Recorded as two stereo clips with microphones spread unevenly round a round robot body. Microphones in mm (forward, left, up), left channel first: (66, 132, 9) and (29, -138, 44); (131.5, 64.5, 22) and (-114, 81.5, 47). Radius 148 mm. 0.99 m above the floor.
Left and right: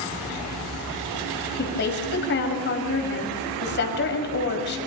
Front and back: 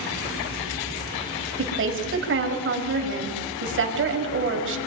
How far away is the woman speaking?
About 5.5 m.